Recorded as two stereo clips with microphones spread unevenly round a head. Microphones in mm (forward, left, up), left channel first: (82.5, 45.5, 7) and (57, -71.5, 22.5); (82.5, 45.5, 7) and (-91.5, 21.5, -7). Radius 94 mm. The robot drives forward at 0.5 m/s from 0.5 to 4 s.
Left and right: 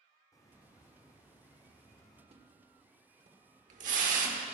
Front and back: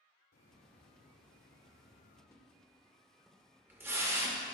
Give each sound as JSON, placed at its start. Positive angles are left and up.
{"t": 0.3, "sound": "a hiss", "azimuth_deg": 20, "distance_m": 3.5}
{"t": 2.3, "sound": "a splash", "azimuth_deg": -70, "distance_m": 1.8}